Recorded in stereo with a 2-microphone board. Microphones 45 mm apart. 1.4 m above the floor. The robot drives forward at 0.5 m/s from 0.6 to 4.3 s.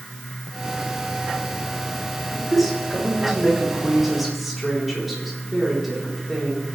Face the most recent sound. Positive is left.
turn(degrees=0)  # may be behind; listen again after turning